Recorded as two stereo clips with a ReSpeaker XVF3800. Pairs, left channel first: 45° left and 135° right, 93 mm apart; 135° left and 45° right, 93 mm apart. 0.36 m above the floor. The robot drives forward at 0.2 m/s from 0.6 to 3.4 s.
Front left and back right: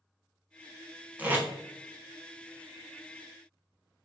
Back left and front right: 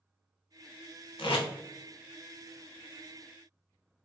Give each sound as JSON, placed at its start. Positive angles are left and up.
{"t": 1.2, "sound": "tape being pulled", "azimuth_deg": 155, "distance_m": 0.6}